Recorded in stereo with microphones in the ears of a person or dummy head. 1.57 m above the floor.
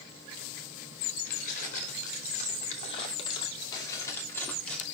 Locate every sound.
1.3 s keys jangling: 50° left (ahead or behind), 3 m; by 4.8 s 5° left (ahead or behind), 2.5 m